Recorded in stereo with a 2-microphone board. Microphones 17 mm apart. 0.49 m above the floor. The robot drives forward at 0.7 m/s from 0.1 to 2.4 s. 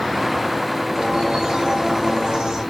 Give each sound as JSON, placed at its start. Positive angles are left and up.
{"t": 0.9, "sound": "a bird", "side_deg": -60, "distance_m": 3.5}